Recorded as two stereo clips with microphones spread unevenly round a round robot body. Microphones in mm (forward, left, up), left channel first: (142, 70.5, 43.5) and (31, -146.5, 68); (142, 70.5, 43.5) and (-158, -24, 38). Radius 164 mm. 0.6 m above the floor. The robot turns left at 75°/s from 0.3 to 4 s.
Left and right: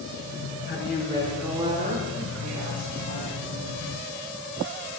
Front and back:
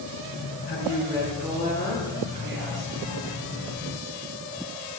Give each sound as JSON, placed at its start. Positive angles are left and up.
{"t": 0.7, "sound": "a woman speaking", "azimuth_deg": 30, "distance_m": 8.5}